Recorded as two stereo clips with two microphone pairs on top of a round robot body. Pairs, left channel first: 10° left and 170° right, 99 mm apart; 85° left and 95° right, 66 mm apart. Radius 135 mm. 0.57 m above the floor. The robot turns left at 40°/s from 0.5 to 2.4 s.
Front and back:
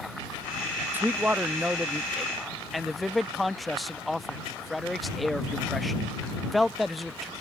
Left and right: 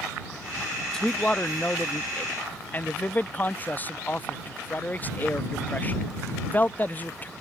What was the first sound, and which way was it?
A man speaking, 160° left.